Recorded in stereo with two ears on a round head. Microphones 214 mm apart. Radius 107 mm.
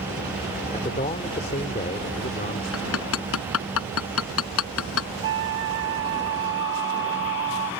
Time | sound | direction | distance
0.7 | a man speaking | 30° left (ahead or behind) | ?
2.7 | hammering | 65° left (ahead or behind) | ?
5.2 | a flute | 50° right (ahead or behind) | ?